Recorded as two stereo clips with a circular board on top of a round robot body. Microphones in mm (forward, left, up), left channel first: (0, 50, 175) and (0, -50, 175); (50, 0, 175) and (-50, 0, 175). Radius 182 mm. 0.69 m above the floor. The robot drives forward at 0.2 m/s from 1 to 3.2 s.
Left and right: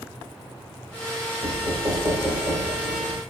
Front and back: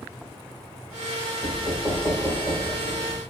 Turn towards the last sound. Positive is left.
turn(degrees=-110)